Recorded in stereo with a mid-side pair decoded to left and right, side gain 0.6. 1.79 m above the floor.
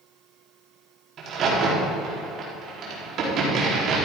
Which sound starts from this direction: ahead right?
A crack, at 1.2 s.